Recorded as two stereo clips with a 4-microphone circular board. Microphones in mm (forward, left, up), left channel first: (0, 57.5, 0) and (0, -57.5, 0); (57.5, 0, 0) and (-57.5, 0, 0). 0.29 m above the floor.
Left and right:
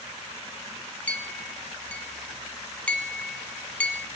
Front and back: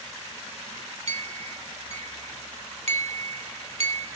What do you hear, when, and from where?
1.1 s a clink: 170° left, 1.2 m